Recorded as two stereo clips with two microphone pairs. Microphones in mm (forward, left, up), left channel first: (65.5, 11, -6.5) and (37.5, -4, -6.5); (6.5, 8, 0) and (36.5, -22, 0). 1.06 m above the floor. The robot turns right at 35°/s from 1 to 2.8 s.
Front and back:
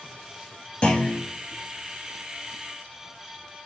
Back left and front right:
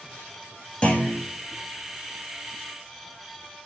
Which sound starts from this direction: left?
A clunk, at 0.8 s.